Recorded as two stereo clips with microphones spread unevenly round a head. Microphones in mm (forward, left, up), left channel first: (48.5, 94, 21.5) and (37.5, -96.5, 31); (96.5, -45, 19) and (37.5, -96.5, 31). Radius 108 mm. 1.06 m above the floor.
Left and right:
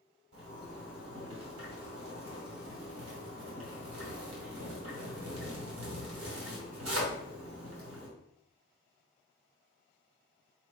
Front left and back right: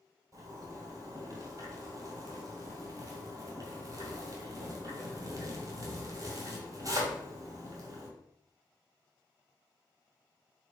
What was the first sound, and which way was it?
A zipper, 105° right.